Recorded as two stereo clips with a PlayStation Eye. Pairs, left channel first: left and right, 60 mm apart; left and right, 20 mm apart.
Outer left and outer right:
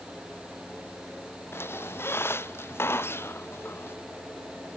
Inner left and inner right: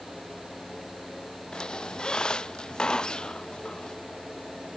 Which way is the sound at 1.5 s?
45° left (ahead or behind).